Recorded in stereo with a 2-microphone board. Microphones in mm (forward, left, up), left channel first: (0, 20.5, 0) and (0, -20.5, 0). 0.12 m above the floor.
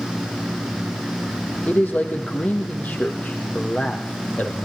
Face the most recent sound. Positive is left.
turn(degrees=40)  # may be behind; listen again after turning